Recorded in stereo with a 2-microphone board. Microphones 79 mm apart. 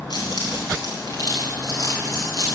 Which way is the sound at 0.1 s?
60° left (ahead or behind).